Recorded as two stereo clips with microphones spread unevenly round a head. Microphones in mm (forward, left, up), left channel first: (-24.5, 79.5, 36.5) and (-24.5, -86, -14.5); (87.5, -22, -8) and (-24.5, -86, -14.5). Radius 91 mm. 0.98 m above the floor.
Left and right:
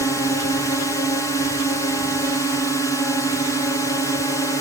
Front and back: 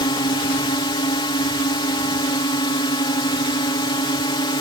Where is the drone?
5° left.